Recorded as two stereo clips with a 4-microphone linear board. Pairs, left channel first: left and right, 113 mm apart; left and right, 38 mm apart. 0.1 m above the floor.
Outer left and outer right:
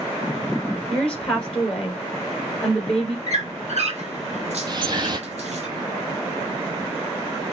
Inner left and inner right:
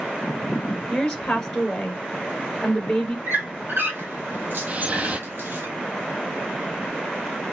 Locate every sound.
0.9 s a woman speaking: 5° left (ahead or behind), 1.3 m
3.3 s a squeak: 70° right (ahead or behind), 1.4 m
4.7 s dripping: 40° right (ahead or behind), 0.6 m